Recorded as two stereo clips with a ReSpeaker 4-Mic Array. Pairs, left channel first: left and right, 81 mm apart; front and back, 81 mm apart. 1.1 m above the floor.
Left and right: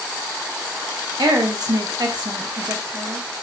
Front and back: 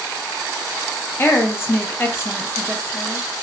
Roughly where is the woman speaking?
Ahead right.